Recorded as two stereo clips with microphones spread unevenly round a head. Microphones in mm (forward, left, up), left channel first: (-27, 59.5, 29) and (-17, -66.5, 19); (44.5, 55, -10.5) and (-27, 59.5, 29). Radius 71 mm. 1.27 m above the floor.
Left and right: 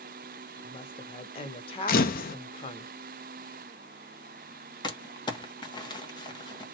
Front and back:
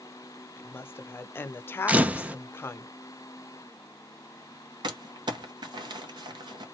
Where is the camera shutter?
110° left, 0.6 m.